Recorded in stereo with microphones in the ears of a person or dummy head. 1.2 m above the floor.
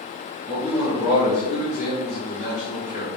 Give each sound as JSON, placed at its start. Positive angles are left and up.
{"t": 0.5, "sound": "a man speaking", "side_deg": 25, "distance_m": 1.9}